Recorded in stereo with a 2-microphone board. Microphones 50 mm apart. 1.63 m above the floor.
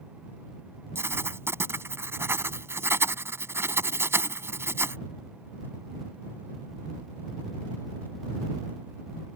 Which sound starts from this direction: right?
Writing, at 0.9 s.